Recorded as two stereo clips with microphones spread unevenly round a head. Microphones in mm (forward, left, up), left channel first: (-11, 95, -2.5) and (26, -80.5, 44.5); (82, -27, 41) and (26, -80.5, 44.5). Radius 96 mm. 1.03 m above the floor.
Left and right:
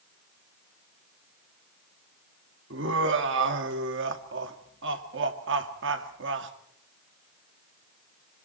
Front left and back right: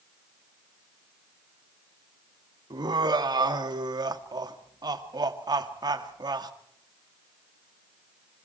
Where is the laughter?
110° right, 2 m.